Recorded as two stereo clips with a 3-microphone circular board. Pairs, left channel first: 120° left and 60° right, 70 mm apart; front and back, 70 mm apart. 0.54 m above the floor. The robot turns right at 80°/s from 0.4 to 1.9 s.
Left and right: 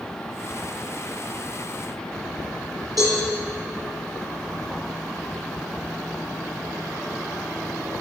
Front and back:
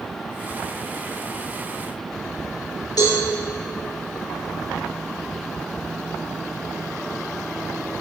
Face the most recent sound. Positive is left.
turn(degrees=-25)